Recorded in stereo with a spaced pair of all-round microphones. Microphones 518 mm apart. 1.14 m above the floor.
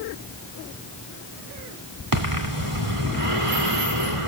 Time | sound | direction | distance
2.1 | breathing | 80° right | 2.5 m